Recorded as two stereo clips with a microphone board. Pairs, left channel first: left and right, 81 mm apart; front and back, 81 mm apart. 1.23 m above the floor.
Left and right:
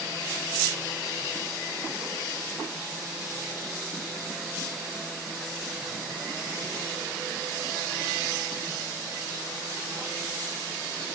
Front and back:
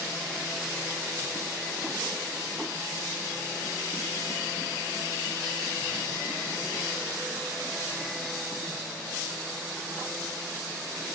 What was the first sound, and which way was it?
Only background noise.